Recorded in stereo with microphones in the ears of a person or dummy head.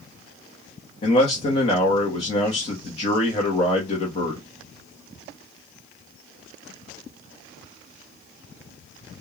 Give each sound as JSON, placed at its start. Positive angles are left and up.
{"t": 1.0, "sound": "a man speaking", "side_deg": 40, "distance_m": 0.7}